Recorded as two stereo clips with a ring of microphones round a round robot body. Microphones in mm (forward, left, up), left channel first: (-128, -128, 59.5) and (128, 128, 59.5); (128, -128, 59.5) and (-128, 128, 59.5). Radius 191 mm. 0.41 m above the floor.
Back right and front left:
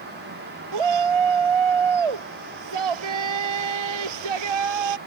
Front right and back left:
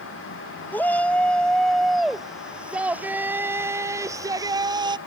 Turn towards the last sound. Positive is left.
turn(degrees=55)